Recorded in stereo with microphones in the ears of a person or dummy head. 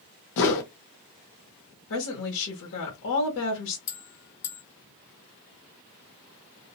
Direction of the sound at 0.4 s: 65° left (ahead or behind).